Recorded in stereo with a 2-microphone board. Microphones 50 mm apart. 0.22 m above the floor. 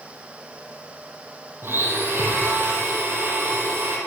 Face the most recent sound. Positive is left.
turn(degrees=-45)  # may be behind; listen again after turning